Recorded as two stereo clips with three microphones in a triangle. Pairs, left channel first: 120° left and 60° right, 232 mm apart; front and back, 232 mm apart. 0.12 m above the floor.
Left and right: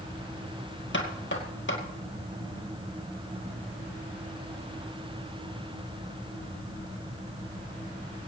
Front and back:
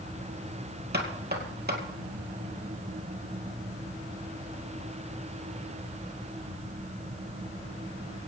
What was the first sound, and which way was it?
Knocking, 145° left.